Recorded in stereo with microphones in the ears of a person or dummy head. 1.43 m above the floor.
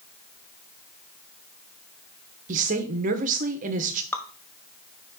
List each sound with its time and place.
2.5 s a woman speaking: 45° right (ahead or behind), 1.3 m
4.1 s dripping: 10° left (ahead or behind), 0.9 m